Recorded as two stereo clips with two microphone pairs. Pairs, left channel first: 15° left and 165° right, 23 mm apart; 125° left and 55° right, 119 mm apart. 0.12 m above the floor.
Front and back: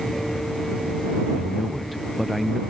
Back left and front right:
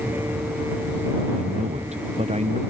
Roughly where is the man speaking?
Right.